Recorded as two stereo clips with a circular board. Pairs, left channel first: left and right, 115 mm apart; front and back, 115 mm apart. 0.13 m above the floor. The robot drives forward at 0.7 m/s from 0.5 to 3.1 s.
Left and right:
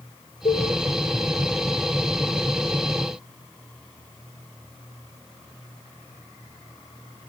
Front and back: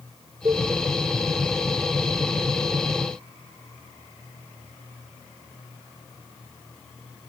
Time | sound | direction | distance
0.5 | a cowbell | 120° left | 2.5 m